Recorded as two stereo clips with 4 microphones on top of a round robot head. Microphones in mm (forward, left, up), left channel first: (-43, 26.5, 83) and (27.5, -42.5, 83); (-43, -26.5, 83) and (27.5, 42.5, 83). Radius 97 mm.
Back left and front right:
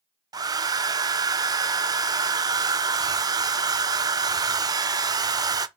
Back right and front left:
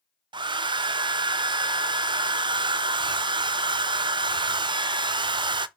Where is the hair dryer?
5° left, 0.5 m.